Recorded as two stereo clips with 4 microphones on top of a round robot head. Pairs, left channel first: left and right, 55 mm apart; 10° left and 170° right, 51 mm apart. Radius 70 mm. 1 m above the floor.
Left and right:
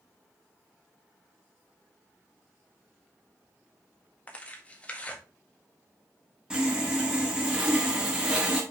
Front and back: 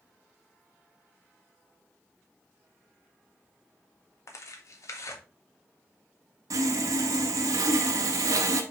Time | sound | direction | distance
4.3 | tearing paper | 25° left | 1.6 m
6.5 | sawing | 165° right | 1.4 m